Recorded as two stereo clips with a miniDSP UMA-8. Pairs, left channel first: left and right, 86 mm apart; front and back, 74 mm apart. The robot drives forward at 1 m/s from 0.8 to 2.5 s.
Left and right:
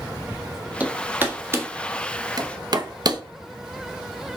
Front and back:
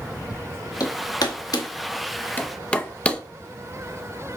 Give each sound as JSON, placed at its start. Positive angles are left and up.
{"t": 0.8, "sound": "hammering", "azimuth_deg": -20, "distance_m": 2.0}